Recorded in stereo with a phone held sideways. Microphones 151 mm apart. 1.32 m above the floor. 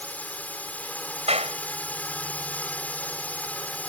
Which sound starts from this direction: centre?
A drone, at 0.0 s.